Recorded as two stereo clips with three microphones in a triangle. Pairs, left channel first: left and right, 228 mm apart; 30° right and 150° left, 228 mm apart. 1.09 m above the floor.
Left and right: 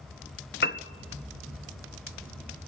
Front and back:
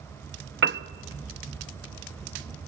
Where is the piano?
125° left, 0.7 m.